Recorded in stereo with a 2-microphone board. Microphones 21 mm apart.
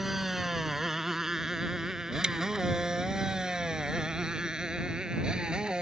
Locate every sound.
0.0 s a motorcycle: 15° right (ahead or behind); by 5.8 s 40° right (ahead or behind)
2.2 s chewing: 40° right (ahead or behind)